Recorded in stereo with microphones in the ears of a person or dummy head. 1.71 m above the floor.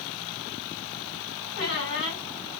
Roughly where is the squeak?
Left.